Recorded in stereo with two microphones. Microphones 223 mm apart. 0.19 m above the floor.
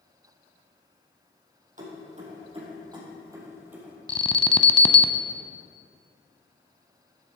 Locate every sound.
1.8 s keys jangling: 35° right (ahead or behind), 4 m; by 4.0 s 5° right (ahead or behind), 3.5 m
4.1 s an alarm: 25° left (ahead or behind), 0.7 m